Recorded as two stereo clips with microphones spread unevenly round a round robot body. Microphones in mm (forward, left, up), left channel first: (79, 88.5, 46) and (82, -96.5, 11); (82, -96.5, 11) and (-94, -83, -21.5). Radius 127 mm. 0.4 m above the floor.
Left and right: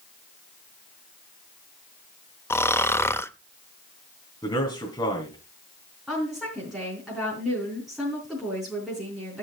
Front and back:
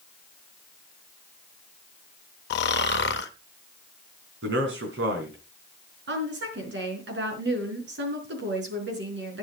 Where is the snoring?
10° left, 0.8 m.